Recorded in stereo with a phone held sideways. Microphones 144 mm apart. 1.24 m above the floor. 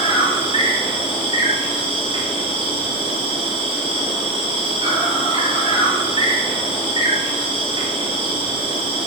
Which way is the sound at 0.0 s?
35° right (ahead or behind).